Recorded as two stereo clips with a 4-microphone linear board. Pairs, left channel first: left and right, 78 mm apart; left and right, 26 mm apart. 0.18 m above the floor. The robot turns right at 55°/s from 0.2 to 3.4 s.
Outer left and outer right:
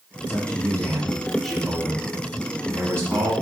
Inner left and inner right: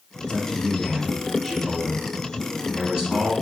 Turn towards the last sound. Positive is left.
turn(degrees=-80)